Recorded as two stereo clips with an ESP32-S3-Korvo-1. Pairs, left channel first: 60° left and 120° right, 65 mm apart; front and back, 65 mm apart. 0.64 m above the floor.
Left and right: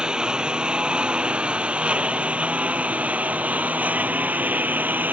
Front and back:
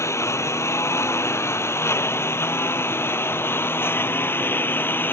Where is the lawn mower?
45° right; by 5.1 s 55° right.